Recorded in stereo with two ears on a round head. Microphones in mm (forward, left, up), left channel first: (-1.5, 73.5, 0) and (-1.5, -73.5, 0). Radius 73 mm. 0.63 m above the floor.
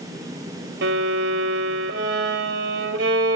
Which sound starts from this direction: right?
A violin, at 0.8 s.